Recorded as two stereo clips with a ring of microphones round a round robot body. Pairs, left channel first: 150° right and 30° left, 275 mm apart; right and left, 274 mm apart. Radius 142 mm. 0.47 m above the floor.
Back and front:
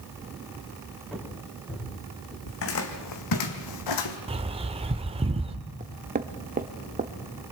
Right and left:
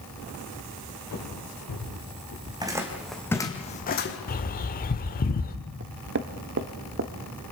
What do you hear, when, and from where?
1.1 s footsteps: 65° right, 6 m; by 2.4 s 75° right, 7 m
2.5 s footsteps: 165° left, 2.5 m; by 4.2 s 140° right, 2.0 m
4.3 s a bird: 35° right, 1.2 m
5.8 s knocking: 75° left, 1.2 m